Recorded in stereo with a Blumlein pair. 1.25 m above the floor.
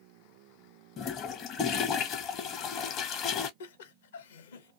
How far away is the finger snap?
No finger snap in this recording.